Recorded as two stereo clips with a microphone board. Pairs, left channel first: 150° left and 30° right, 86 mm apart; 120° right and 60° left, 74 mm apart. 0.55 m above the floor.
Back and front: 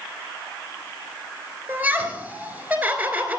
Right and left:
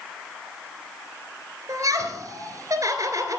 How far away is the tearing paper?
No tearing paper in this recording.